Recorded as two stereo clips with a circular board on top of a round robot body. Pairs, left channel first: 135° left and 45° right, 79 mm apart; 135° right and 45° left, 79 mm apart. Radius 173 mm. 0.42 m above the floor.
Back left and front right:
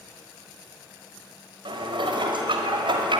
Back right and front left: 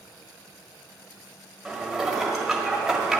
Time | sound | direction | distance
1.6 | dishes clattering | 40° right | 1.6 m